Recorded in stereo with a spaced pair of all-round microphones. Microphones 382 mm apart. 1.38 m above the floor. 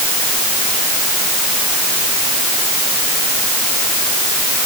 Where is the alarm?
I don't hear an alarm.